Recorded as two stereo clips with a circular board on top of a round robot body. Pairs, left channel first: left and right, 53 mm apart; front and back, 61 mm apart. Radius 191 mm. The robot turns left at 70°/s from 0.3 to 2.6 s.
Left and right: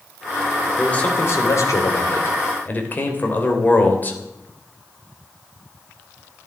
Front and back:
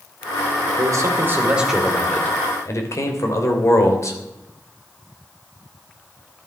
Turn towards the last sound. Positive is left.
turn(degrees=35)